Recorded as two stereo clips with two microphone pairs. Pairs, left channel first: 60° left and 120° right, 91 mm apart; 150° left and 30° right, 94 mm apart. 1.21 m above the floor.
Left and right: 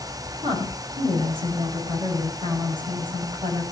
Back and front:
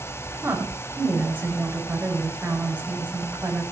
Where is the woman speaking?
100° right, 9 m.